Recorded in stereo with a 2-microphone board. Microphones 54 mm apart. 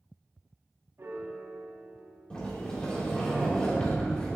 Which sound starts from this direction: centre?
A sliding door, at 2.3 s.